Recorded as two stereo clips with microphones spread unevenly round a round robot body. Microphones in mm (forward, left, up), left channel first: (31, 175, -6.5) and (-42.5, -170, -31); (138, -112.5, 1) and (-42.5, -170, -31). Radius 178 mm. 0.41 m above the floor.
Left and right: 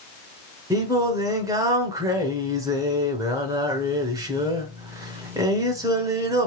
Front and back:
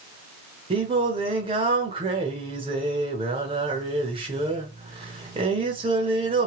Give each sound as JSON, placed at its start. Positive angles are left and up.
{"t": 0.7, "sound": "singing", "azimuth_deg": -170, "distance_m": 0.7}